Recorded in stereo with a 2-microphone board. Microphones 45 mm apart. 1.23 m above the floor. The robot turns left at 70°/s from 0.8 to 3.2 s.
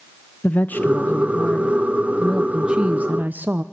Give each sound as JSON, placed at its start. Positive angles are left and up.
{"t": 0.4, "sound": "a woman speaking", "azimuth_deg": 100, "distance_m": 0.5}